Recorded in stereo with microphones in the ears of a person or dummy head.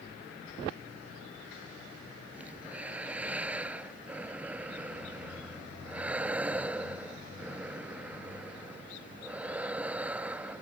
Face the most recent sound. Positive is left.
turn(degrees=-5)  # may be behind; listen again after turning